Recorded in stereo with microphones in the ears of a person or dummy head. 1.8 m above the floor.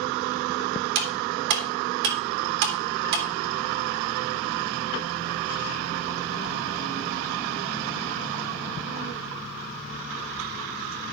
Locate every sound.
0.9 s cutlery clinking: 60° right (ahead or behind), 2.5 m